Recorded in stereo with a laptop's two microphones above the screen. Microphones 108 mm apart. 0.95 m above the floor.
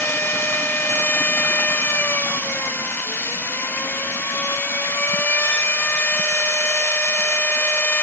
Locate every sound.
0.0 s a machine running: 20° left (ahead or behind), 1.0 m